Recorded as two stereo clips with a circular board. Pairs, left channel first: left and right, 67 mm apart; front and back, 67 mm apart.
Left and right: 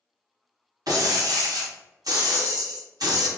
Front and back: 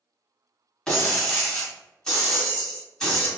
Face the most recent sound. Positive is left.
turn(degrees=-80)